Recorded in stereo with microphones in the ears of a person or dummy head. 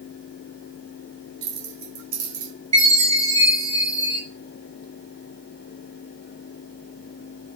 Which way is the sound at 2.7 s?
40° right (ahead or behind).